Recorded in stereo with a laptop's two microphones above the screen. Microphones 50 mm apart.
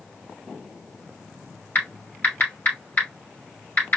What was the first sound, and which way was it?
Typing on a keyboard, 40° left (ahead or behind).